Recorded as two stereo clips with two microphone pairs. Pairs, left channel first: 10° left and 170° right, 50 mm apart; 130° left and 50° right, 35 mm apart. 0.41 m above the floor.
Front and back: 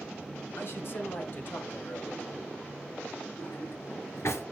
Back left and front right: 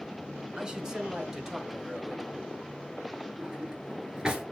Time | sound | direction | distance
0.6 | a man speaking | 20° left | 1.8 m
3.4 | a drawer | 20° left | 1.9 m